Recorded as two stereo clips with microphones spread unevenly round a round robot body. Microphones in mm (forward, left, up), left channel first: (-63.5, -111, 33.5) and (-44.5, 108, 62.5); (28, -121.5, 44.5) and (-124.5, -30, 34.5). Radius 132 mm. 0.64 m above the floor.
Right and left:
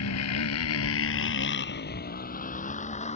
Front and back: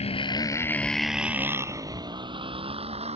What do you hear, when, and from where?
0.0 s a motorcycle: 85° right; by 3.2 s 155° right